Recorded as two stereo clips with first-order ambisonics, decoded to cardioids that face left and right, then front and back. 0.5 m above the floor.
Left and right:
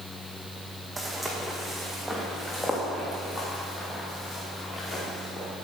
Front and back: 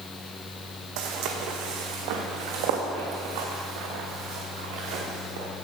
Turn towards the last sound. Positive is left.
turn(degrees=160)